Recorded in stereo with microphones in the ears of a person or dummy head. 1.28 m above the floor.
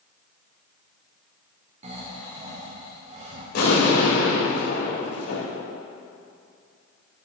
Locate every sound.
1.8 s snoring: 35° right (ahead or behind), 1.9 m
3.5 s an explosion: 60° left (ahead or behind), 3.5 m